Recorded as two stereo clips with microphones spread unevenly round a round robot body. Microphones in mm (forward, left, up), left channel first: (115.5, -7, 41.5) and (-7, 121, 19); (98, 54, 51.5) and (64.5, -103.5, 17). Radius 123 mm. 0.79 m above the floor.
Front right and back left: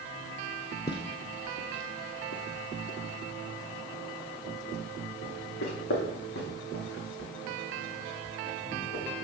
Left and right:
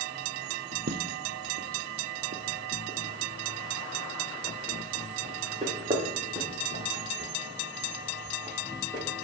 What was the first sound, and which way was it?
Footsteps, 100° right.